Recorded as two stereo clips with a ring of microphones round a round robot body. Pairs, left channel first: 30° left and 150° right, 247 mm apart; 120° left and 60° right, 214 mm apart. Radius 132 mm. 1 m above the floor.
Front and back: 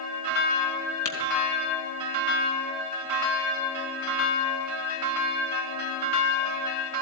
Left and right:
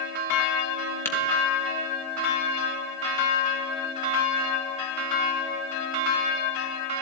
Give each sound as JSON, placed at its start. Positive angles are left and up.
{"t": 1.1, "sound": "tapping", "azimuth_deg": 40, "distance_m": 3.0}